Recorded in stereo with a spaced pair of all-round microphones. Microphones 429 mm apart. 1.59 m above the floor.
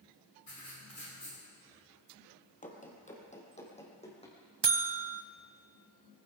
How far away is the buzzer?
About 0.7 m.